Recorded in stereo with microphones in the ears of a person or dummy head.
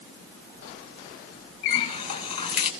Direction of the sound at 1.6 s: 35° left (ahead or behind).